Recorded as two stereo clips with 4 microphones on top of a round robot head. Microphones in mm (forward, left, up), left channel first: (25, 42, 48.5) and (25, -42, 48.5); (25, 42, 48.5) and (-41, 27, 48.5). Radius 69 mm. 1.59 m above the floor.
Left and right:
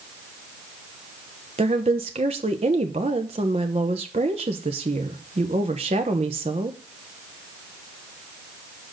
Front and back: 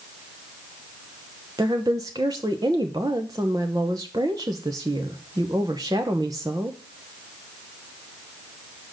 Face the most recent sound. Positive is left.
turn(degrees=-115)